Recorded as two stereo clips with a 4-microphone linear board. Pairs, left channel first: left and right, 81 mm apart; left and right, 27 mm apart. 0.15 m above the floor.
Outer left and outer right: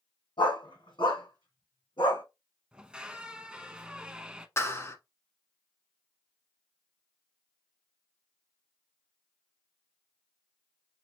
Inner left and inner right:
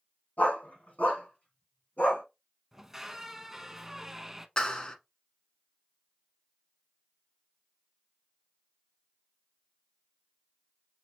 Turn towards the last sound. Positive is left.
turn(degrees=35)  # may be behind; listen again after turning